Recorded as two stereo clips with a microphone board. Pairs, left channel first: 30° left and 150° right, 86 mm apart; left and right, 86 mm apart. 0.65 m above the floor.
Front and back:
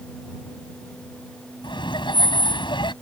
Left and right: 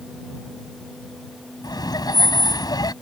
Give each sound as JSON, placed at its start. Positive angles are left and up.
{"t": 1.6, "sound": "laughter", "azimuth_deg": 50}